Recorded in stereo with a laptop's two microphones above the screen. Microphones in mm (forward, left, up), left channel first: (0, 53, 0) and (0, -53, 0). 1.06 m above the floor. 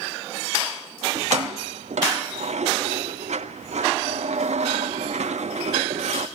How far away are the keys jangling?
About 1.1 m.